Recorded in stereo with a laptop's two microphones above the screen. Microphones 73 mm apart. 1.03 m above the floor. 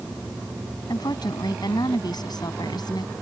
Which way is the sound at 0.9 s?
70° left (ahead or behind).